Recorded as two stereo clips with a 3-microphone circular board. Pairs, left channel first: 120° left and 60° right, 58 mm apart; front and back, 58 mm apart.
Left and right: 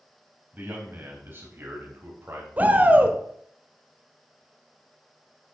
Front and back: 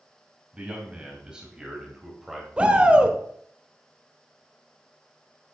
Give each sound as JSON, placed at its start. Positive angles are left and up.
{"t": 0.5, "sound": "a man speaking", "azimuth_deg": -110, "distance_m": 3.5}
{"t": 2.6, "sound": "a shout", "azimuth_deg": -110, "distance_m": 1.3}